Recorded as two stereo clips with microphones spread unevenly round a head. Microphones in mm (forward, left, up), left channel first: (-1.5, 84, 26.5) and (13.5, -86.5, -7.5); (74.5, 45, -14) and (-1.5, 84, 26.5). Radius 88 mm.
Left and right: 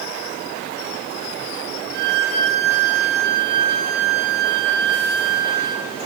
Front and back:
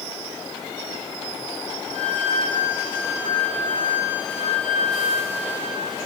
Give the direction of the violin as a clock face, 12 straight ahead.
2 o'clock.